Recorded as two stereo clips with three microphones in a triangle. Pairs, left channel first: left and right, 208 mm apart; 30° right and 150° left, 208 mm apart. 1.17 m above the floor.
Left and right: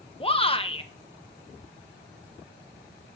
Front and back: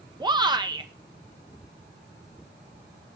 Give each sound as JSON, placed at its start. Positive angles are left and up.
{"t": 0.2, "sound": "a shout", "azimuth_deg": 110, "distance_m": 0.7}